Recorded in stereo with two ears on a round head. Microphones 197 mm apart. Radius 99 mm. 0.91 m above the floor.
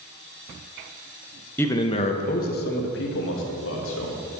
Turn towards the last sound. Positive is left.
turn(degrees=65)  # may be behind; listen again after turning